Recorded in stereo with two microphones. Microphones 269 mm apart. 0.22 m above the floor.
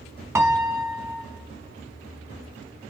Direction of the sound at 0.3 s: 10° right (ahead or behind).